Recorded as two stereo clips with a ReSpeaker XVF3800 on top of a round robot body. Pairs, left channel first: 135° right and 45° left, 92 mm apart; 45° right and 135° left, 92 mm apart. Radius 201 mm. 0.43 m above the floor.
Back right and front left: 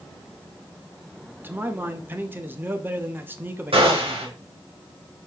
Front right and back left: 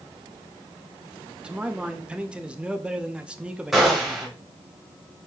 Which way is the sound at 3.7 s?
50° left.